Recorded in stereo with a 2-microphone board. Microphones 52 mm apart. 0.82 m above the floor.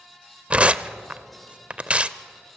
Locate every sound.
0.5 s tearing paper: 25° right (ahead or behind), 0.6 m